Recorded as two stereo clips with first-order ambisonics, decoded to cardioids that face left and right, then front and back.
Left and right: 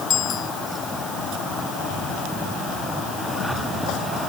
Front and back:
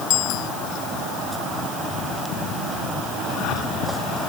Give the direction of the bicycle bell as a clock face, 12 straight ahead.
11 o'clock.